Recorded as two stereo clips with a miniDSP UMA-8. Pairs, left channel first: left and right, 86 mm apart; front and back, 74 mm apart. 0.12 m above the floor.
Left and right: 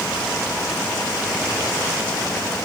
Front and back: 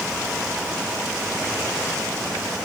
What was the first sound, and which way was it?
Only background noise.